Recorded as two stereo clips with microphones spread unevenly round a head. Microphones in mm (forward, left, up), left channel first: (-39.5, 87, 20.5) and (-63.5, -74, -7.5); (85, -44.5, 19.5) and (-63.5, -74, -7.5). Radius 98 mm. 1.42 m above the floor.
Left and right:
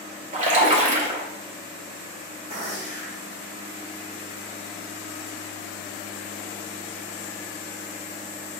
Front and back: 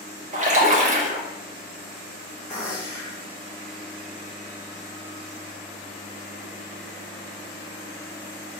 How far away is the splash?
About 1.2 m.